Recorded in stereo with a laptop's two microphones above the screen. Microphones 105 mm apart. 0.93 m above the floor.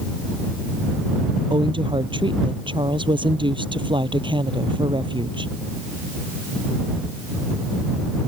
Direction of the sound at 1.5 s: 50° right (ahead or behind).